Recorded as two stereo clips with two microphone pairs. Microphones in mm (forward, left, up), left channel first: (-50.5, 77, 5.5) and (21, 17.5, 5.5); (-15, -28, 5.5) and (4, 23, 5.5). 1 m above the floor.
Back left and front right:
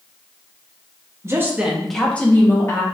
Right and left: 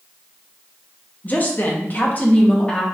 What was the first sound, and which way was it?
A woman speaking, 80° right.